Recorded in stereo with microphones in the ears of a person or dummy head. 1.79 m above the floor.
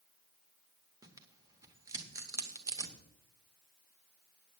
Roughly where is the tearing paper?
Centre.